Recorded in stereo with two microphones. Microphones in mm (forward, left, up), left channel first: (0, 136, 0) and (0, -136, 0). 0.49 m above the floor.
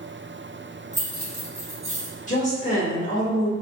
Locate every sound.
0.9 s keys jangling: 25° right (ahead or behind), 0.9 m; by 2.2 s 55° right (ahead or behind), 1.1 m
2.3 s a woman speaking: 25° left (ahead or behind), 1.2 m